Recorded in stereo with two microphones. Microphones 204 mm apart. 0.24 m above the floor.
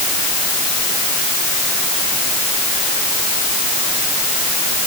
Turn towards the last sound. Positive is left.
No sound to turn to.